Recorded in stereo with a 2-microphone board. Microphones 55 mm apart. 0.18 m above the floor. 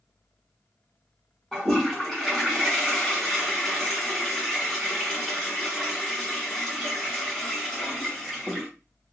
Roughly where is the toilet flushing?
Centre.